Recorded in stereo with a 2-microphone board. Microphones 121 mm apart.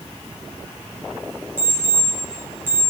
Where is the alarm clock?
15° right (ahead or behind), 3.5 m.